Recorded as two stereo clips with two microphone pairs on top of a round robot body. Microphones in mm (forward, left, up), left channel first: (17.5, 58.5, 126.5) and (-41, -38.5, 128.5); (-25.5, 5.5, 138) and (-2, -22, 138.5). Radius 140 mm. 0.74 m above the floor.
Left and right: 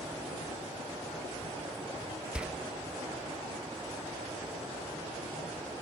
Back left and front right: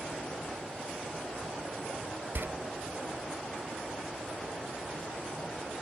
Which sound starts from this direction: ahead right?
A door slam, at 2.4 s.